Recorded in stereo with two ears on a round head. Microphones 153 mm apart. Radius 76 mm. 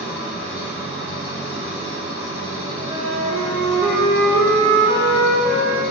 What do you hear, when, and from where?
0.0 s an engine running: 15° right (ahead or behind), 1.6 m
2.8 s a flute: 65° right (ahead or behind), 1.4 m